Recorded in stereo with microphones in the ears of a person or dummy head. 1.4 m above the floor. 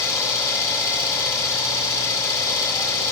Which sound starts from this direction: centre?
An engine running, at 0.0 s.